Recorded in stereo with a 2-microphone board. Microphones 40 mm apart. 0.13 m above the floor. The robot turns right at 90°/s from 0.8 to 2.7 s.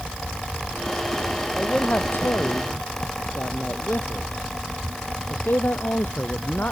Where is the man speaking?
15° left; by 6.7 s 115° left.